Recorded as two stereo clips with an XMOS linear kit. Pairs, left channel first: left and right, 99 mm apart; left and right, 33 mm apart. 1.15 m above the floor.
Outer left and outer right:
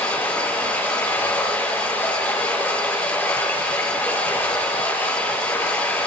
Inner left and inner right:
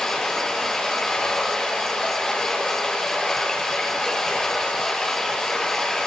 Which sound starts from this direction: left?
Running water, at 0.0 s.